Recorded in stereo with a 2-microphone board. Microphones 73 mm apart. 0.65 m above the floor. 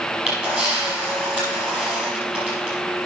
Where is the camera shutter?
15° right (ahead or behind), 5 m.